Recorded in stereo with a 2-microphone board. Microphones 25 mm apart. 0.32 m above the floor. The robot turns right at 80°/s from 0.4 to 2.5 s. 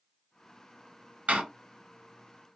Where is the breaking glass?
No breaking glass in this recording.